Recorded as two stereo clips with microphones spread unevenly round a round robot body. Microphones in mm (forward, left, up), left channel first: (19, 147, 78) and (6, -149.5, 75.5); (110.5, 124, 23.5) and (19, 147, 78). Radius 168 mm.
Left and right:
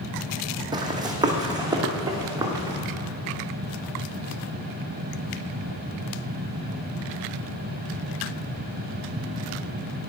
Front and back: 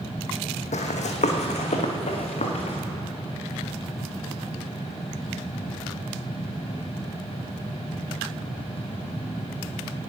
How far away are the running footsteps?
About 1.0 m.